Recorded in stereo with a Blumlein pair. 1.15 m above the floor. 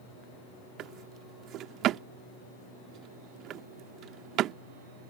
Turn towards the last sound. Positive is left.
turn(degrees=-35)